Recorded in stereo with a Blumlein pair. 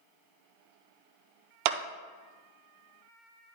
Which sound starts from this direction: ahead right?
A clap, at 1.6 s.